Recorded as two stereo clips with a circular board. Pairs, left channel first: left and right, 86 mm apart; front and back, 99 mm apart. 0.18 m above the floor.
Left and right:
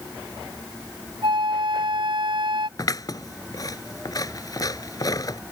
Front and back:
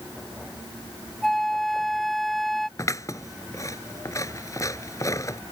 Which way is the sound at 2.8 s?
55° left.